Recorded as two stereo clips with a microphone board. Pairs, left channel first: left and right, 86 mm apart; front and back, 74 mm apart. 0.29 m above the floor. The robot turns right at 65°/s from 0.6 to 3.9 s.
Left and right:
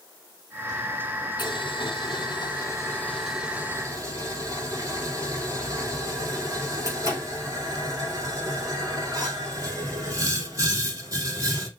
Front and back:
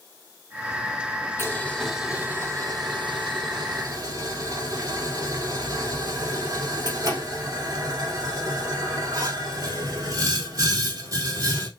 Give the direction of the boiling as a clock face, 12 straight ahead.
10 o'clock.